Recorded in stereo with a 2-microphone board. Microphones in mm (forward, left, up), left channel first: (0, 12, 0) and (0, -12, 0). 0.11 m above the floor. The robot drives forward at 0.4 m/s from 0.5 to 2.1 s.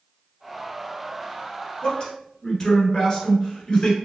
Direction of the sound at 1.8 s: 25° left (ahead or behind).